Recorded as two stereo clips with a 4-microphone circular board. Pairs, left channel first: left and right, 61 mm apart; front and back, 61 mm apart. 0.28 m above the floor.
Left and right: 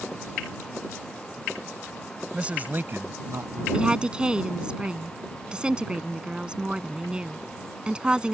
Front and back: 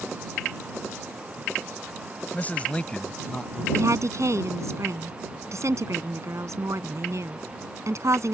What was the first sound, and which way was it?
A man speaking, 30° right.